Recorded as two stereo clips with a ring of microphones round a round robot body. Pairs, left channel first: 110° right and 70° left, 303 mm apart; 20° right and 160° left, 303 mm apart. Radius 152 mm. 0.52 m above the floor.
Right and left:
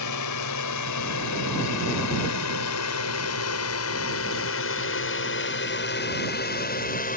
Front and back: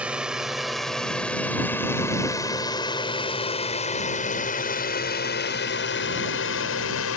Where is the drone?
115° right; by 7.2 s 55° right.